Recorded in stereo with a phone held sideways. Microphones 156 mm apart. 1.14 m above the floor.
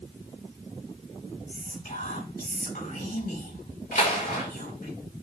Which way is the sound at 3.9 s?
75° left (ahead or behind).